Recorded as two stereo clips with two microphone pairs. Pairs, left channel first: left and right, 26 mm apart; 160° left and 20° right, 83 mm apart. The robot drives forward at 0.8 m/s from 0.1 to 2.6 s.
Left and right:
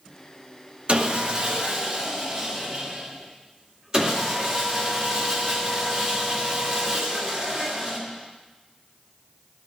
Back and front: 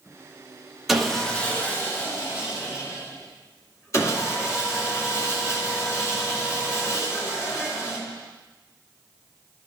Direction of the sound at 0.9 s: 105° right.